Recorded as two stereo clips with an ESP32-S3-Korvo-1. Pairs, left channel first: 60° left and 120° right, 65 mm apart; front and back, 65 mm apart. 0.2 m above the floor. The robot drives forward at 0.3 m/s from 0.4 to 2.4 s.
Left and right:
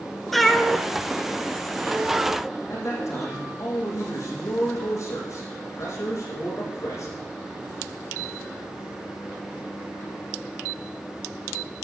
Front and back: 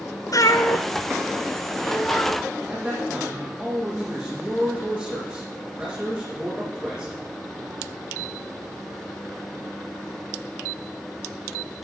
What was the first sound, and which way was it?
A cat meowing, 30° right.